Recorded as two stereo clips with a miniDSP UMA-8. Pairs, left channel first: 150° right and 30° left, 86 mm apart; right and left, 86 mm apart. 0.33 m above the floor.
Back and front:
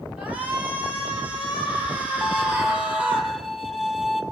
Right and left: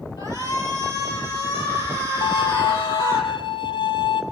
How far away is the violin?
About 1.6 m.